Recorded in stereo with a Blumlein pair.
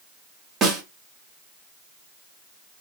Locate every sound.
0.6 s a snare drum: 20° right, 1.4 m